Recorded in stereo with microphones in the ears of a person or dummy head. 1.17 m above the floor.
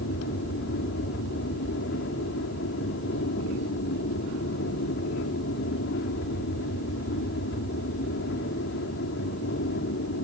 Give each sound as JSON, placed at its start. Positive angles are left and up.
{"t": 0.0, "sound": "an aircraft", "side_deg": 65}